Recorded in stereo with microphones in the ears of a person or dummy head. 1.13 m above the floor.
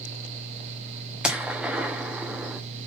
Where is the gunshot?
5° right (ahead or behind), 1.2 m.